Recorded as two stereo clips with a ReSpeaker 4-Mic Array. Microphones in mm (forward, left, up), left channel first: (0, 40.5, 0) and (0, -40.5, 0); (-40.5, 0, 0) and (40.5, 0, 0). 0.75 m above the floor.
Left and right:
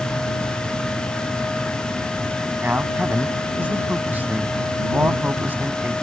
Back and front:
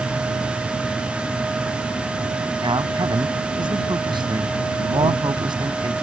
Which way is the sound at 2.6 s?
20° right.